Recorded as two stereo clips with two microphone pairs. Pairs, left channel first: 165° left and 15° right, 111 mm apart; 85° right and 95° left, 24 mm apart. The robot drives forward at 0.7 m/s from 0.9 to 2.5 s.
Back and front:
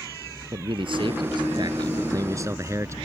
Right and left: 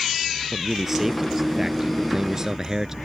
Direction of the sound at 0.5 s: 20° left.